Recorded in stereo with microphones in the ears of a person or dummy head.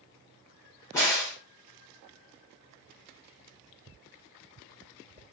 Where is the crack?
20° left (ahead or behind), 1.2 m.